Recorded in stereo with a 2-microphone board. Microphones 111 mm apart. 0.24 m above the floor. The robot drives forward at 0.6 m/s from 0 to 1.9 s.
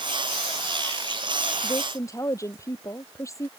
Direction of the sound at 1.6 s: 30° left (ahead or behind).